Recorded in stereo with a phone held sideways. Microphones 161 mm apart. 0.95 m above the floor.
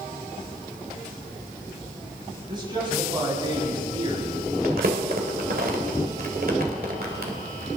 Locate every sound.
2.5 s a man speaking: 30° right (ahead or behind), 7 m
4.6 s crumpling: 70° right (ahead or behind), 2 m